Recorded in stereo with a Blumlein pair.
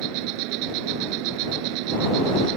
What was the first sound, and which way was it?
An insect, 45° right.